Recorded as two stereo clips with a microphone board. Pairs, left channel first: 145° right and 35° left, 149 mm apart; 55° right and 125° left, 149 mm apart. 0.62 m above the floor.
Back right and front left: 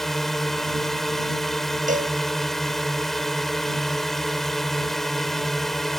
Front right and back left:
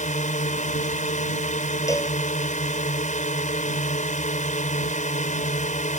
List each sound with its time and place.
0.0 s a drone: 60° right
1.9 s a cowbell: 10° left